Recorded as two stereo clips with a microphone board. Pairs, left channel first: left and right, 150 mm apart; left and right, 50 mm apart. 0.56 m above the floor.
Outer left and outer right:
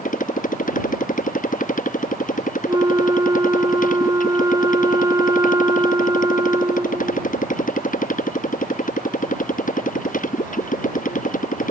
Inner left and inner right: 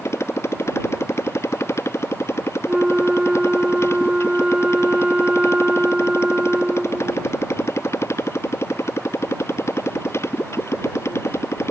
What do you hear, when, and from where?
0.0 s a motorcycle: 60° left (ahead or behind)
2.7 s a flute: 25° right (ahead or behind)